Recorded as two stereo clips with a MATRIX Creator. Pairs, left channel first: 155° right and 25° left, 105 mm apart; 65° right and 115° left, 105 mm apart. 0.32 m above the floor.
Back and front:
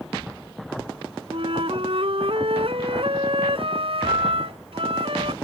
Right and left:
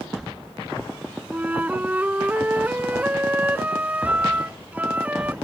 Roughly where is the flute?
Ahead left.